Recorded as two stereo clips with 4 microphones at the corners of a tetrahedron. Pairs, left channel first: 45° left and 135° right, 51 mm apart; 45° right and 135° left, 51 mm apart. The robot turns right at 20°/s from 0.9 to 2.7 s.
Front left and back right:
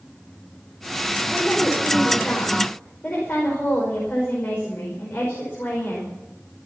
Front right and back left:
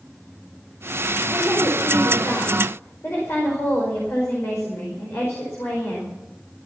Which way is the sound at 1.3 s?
40° right.